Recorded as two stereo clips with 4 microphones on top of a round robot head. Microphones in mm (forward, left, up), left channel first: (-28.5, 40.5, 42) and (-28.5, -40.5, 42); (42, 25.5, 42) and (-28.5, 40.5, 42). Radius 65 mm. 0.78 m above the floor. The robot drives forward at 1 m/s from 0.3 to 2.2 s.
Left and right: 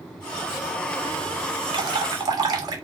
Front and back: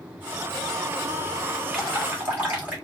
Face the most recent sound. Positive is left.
turn(degrees=-125)